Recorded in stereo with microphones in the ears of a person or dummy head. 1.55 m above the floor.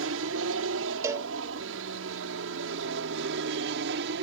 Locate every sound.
0.0 s an aircraft: 70° right (ahead or behind); by 4.2 s 60° right (ahead or behind)
1.0 s a cowbell: 15° right (ahead or behind)